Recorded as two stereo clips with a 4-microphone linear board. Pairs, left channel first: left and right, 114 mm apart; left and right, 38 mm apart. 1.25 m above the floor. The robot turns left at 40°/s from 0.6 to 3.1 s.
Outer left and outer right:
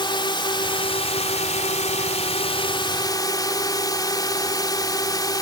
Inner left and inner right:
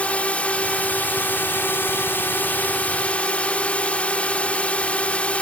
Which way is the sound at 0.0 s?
135° left.